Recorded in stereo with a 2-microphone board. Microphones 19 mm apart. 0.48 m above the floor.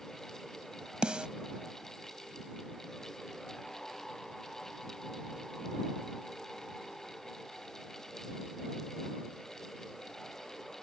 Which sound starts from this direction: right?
A snare drum, at 1.0 s.